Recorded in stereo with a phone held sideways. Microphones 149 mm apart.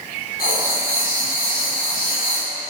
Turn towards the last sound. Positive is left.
turn(degrees=75)  # may be behind; listen again after turning